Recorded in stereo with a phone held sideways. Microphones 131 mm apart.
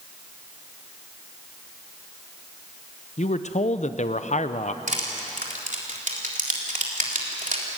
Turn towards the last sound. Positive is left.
turn(degrees=-75)  # may be behind; listen again after turning